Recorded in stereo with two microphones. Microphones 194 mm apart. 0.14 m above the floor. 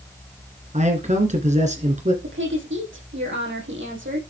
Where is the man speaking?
35° right (ahead or behind), 2 m.